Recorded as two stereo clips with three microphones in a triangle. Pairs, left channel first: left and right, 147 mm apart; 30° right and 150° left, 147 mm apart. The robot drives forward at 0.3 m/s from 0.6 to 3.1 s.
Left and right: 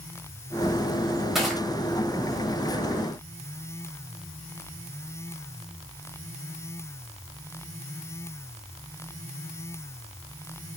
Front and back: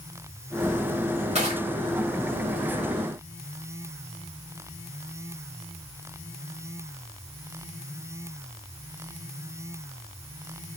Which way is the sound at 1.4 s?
Straight behind.